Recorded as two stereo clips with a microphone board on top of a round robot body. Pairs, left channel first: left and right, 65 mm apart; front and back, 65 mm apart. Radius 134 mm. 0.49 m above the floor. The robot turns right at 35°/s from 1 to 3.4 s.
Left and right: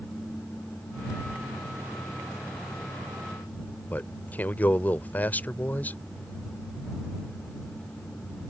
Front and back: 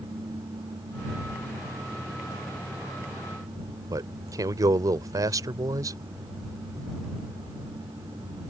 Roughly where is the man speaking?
Behind left.